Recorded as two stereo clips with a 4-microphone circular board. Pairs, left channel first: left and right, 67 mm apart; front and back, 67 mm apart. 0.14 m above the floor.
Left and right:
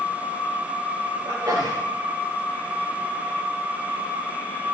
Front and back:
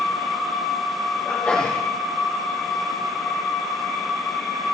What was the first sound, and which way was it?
A sneeze, 70° right.